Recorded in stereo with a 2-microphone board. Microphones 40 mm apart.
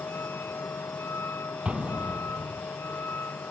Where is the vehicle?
80° left; by 3.5 s 65° left (ahead or behind).